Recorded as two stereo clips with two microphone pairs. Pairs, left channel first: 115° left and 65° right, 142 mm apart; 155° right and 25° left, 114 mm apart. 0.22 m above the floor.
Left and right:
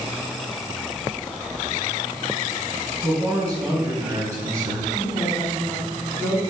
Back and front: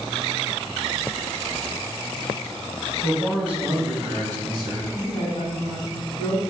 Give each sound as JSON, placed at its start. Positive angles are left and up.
{"t": 3.0, "sound": "a man speaking", "azimuth_deg": -75, "distance_m": 1.1}
{"t": 4.9, "sound": "a woman speaking", "azimuth_deg": 170, "distance_m": 1.2}